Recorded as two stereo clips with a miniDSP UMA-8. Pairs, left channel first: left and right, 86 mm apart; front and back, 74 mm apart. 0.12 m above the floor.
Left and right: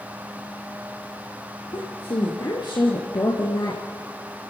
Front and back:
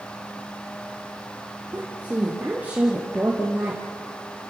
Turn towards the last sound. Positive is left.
turn(degrees=110)